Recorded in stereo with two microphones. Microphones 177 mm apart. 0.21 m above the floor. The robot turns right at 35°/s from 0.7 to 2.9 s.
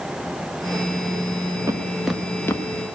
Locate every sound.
1.7 s footsteps: 15° right (ahead or behind), 1.2 m; by 2.6 s 15° left (ahead or behind), 1.2 m